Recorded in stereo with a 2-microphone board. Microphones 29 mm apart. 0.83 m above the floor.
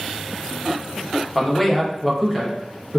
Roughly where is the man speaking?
Centre.